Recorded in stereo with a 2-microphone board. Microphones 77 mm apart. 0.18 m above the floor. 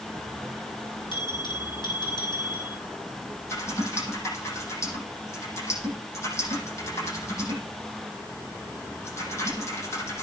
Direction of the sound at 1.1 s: 80° left.